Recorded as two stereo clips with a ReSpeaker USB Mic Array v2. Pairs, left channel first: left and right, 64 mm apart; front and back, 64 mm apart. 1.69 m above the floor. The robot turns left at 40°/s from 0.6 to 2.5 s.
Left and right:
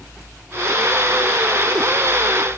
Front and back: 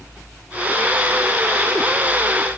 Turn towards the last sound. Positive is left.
No sound to turn to.